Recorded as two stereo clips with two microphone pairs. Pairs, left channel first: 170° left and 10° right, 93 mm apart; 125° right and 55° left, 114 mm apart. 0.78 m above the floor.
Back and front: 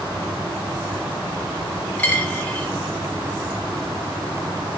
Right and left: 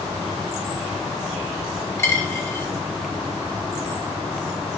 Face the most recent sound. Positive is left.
turn(degrees=-135)